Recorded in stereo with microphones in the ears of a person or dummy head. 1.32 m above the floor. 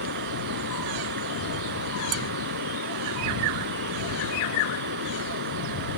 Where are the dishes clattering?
85° right.